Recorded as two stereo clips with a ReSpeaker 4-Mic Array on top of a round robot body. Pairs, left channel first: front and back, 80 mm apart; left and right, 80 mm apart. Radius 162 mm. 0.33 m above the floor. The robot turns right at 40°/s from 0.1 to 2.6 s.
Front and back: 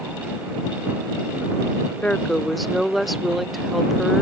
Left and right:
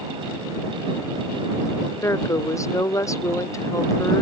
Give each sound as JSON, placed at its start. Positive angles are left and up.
{"t": 2.0, "sound": "a woman speaking", "azimuth_deg": 70}